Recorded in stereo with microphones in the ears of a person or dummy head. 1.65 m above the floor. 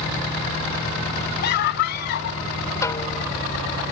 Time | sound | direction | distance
1.4 | a scream | 65° left (ahead or behind) | ?
2.8 | a snare drum | 20° left (ahead or behind) | ?